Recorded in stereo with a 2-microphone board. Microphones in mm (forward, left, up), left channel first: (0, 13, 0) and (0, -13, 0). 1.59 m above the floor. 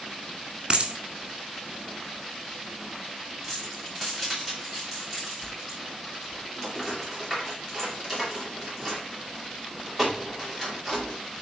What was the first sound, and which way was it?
A dropped coin, 35° right (ahead or behind).